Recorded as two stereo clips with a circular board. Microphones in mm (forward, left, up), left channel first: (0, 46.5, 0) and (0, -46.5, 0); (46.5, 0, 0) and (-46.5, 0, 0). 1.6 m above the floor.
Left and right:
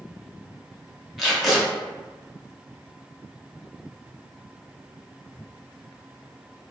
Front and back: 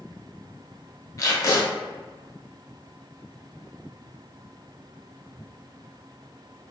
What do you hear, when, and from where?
1.2 s tape being pulled: straight ahead, 0.7 m